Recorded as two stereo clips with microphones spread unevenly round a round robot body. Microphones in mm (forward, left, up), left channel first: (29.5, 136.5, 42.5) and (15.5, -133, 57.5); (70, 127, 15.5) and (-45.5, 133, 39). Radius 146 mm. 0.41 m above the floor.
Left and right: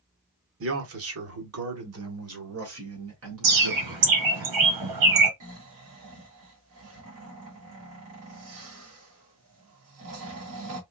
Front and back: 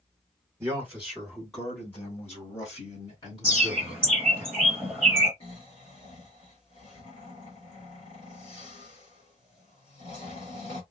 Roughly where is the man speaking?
Right.